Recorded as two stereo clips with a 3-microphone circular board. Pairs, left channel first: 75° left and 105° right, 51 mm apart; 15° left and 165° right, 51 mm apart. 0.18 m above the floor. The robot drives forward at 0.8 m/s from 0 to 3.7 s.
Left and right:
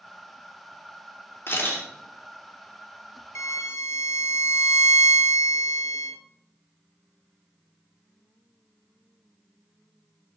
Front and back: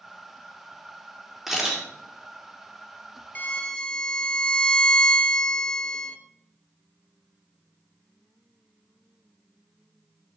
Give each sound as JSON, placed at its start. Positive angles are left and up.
{"t": 1.5, "sound": "a camera shutter", "azimuth_deg": 105, "distance_m": 4.0}
{"t": 3.4, "sound": "a violin", "azimuth_deg": 70, "distance_m": 0.8}